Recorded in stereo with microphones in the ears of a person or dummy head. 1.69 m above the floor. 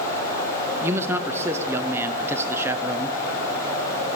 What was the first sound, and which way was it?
A man speaking, 15° right (ahead or behind).